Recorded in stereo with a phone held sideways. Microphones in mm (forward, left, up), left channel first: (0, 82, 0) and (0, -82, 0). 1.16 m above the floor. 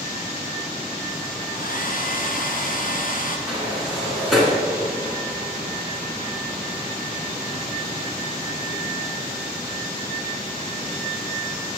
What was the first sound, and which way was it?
A hair dryer, 60° left (ahead or behind).